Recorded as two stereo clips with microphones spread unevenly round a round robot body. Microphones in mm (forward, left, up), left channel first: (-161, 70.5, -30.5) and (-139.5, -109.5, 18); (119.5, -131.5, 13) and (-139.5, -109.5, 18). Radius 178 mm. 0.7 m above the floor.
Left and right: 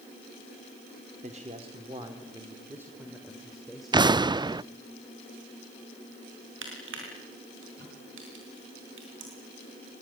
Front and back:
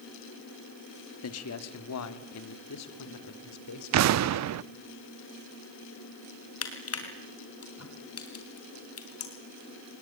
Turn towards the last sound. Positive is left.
turn(degrees=-35)